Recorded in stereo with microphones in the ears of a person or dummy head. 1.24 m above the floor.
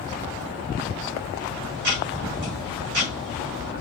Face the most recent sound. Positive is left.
turn(degrees=-45)  # may be behind; listen again after turning